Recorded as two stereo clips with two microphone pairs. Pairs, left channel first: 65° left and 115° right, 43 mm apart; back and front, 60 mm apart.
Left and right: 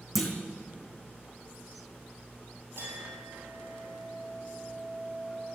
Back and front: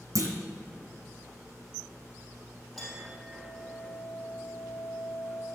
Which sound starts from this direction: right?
A clink, at 2.8 s.